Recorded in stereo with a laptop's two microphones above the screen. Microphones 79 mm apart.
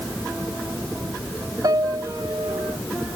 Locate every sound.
1.6 s a piano: 60° right (ahead or behind)